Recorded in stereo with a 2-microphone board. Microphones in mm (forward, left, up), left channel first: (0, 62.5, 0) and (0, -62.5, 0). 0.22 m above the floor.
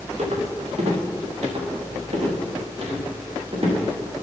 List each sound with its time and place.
0.2 s footsteps: 60° right (ahead or behind), 4.5 m; by 3.7 s 50° right (ahead or behind), 6.5 m